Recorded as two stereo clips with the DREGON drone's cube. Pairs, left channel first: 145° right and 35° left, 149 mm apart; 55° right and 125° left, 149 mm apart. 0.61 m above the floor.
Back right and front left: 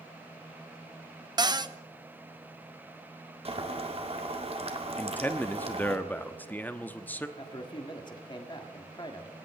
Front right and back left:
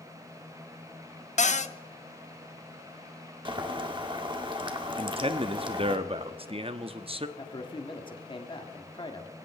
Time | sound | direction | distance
1.4 | a cupboard door | 25° right | 0.6 m
3.5 | boiling | 75° left | 1.7 m
5.0 | a man speaking | 140° left | 0.9 m
7.4 | a man speaking | 100° right | 1.8 m